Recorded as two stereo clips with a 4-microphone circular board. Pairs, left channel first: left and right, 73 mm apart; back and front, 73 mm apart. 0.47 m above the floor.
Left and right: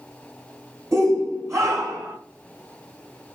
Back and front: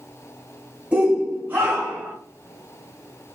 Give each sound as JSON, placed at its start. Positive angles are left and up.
{"t": 0.9, "sound": "a shout", "azimuth_deg": -70, "distance_m": 2.5}